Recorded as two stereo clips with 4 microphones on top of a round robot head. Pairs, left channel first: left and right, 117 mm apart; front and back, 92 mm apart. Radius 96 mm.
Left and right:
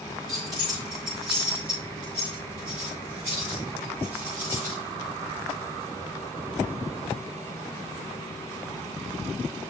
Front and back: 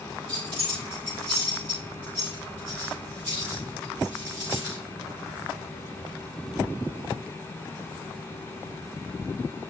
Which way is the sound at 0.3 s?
150° right.